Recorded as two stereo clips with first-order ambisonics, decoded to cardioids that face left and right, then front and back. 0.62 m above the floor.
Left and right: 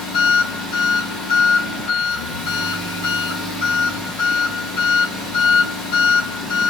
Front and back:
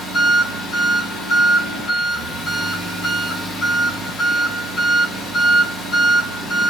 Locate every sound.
0.0 s an engine running: 100° left, 3 m